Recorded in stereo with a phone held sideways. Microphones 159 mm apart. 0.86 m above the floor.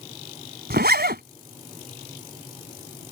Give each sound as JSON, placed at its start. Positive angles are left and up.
{"t": 0.7, "sound": "a zipper", "side_deg": -75}